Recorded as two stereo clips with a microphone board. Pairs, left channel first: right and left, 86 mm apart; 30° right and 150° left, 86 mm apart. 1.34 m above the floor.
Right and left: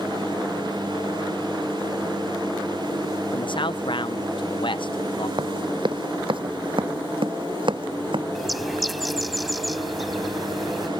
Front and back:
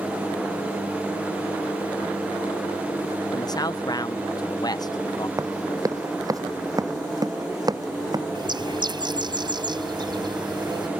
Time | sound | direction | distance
3.3 | a man speaking | 70° right | ?
5.4 | running footsteps | 105° left | ?
8.3 | a bird | straight behind | ?